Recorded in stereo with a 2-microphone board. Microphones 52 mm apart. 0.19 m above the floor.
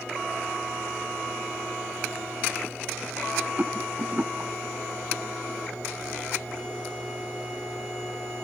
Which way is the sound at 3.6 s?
35° right (ahead or behind).